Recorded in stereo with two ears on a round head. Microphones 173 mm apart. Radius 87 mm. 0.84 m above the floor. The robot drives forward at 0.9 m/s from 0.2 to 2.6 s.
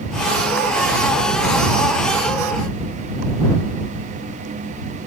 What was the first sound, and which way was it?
Only background noise.